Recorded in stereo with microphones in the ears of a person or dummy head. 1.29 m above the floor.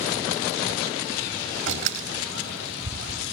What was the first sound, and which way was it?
A door slam, 80° right.